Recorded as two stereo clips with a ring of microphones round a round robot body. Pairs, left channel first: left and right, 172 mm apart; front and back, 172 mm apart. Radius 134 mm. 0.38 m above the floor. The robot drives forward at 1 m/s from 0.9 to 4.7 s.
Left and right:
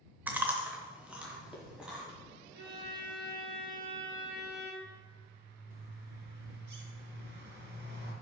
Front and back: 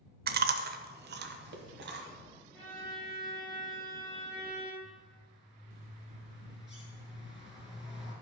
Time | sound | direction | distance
0.3 | chewing | 170° right | 0.6 m
2.5 | a violin | 80° right | 3 m
4.8 | a bird | 110° right | 2.5 m